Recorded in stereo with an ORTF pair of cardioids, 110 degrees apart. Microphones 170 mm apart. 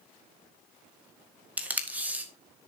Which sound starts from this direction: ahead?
Tape being pulled, at 1.6 s.